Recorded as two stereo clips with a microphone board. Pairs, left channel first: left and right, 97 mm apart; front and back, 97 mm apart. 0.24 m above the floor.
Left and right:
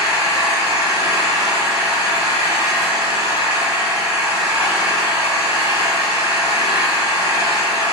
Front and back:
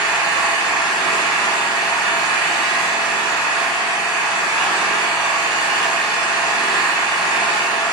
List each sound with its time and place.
0.0 s an engine running: 95° right, 1.5 m